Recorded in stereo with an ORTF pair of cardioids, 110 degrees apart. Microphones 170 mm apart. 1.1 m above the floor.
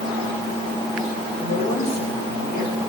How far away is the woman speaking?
About 5.5 m.